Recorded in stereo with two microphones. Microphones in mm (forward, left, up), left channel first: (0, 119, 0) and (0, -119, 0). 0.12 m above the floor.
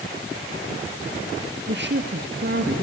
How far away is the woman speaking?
About 2.5 m.